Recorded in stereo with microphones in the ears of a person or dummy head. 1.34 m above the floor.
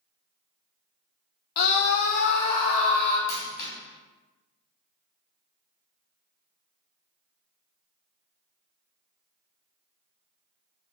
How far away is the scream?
About 0.7 m.